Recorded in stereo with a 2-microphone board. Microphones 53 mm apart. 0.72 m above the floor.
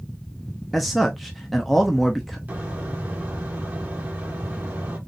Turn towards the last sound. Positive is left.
turn(degrees=-30)  # may be behind; listen again after turning